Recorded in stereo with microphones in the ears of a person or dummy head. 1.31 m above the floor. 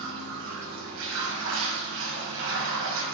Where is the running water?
65° right (ahead or behind), 5.5 m.